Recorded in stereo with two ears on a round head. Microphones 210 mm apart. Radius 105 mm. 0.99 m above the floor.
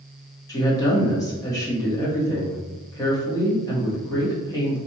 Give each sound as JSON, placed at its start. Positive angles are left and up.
{"t": 0.5, "sound": "a woman speaking", "side_deg": 15, "distance_m": 1.3}